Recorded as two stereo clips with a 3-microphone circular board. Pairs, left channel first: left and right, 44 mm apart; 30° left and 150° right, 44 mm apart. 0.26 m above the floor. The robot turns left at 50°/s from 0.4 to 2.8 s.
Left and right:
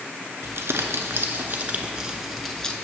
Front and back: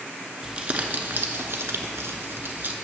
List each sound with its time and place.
0.4 s crumpling: 80° right, 0.8 m; by 2.7 s 165° left, 0.8 m